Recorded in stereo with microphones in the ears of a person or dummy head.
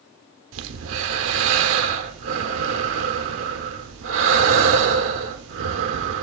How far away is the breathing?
About 0.8 m.